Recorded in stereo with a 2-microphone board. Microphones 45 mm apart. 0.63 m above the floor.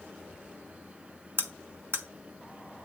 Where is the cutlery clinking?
60° right (ahead or behind), 1.2 m.